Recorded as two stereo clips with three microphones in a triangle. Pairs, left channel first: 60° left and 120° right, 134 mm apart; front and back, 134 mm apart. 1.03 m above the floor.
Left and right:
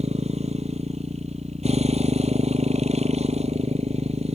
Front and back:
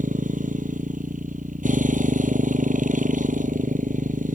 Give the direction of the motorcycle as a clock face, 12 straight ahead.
5 o'clock.